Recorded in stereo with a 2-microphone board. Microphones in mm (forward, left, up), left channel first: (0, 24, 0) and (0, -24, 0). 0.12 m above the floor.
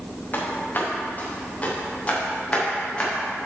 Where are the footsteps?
35° left (ahead or behind), 3.5 m; by 3.1 s 20° left (ahead or behind), 4.5 m.